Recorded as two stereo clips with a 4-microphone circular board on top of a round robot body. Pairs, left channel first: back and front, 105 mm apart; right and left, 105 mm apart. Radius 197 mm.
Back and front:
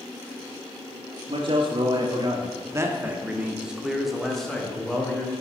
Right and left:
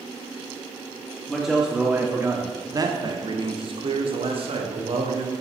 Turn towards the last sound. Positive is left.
turn(degrees=100)